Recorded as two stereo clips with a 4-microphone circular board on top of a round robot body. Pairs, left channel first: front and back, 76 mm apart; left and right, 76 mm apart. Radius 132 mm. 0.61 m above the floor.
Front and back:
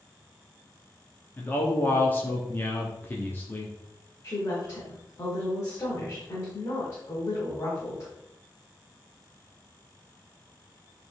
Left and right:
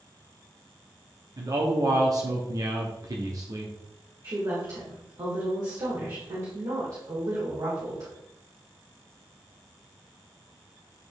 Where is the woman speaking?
50° right, 2 m.